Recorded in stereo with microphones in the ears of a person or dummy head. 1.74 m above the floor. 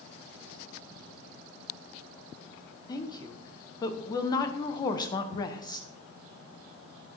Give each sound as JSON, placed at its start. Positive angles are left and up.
{"t": 2.9, "sound": "a woman speaking", "side_deg": 25, "distance_m": 1.0}
{"t": 5.3, "sound": "ticking", "side_deg": -5, "distance_m": 5.5}